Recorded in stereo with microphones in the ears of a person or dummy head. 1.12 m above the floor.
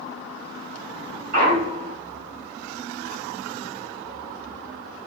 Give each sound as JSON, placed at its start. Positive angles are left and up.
{"t": 1.3, "sound": "a clunk", "side_deg": -55, "distance_m": 1.1}